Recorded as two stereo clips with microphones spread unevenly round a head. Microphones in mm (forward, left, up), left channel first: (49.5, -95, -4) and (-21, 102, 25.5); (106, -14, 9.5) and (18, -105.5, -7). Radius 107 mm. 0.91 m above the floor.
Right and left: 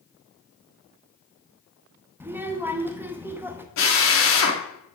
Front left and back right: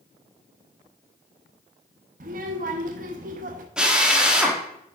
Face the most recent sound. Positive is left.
turn(degrees=-50)